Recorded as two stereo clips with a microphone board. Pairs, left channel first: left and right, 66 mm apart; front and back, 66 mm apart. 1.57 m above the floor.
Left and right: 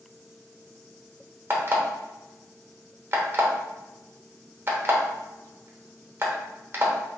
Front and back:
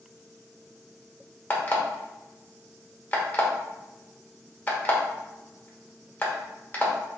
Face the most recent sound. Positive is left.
turn(degrees=-55)